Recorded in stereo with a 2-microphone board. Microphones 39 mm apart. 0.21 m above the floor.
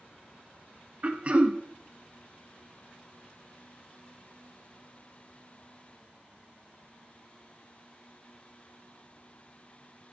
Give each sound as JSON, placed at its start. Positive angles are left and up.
{"t": 1.0, "sound": "throat clearing", "side_deg": -35, "distance_m": 0.6}